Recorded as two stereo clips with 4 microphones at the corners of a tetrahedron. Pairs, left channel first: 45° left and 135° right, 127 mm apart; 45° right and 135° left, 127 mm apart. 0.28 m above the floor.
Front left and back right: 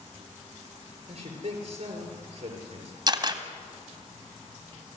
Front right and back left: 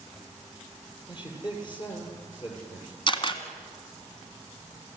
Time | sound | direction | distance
1.1 | a man speaking | 95° right | 7 m
3.1 | a camera shutter | 85° right | 1.9 m